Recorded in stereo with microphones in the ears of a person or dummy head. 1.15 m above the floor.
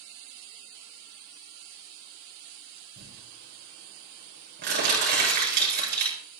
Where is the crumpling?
65° right (ahead or behind), 9.5 m.